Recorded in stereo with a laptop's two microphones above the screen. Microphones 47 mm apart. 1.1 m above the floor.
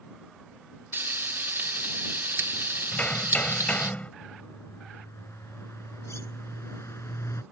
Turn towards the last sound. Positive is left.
turn(degrees=75)  # may be behind; listen again after turning